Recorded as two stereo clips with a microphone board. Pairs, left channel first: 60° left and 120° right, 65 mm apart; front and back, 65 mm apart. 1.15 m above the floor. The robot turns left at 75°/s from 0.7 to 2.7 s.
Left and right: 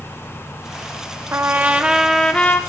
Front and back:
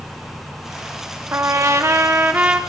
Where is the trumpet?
150° right, 0.8 m; by 2.6 s 110° left, 0.8 m.